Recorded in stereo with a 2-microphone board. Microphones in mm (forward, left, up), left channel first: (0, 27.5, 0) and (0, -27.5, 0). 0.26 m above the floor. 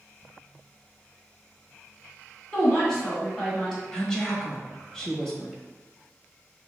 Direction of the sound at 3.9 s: 10° left (ahead or behind).